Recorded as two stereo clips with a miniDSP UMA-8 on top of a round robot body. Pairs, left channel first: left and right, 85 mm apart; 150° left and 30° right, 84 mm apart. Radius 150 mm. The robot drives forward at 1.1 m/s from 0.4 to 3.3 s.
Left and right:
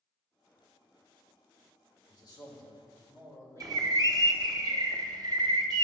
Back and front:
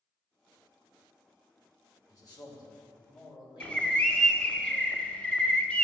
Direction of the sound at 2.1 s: 115° left.